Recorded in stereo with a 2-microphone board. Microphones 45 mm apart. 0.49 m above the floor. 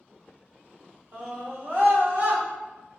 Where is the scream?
40° right (ahead or behind), 1.0 m; by 2.4 s 50° right (ahead or behind), 1.4 m.